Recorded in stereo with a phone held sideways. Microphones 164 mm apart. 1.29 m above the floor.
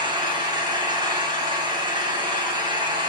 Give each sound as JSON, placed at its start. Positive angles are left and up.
{"t": 0.0, "sound": "an engine running", "side_deg": -30, "distance_m": 4.0}